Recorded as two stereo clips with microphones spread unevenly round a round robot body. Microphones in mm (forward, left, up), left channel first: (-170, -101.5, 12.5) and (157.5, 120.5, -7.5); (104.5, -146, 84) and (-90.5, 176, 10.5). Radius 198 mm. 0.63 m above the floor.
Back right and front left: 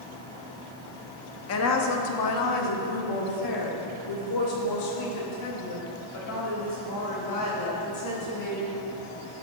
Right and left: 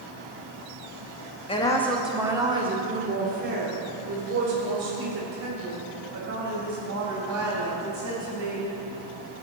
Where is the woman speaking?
140° right, 1.0 m; by 8.7 s 170° left, 5.5 m.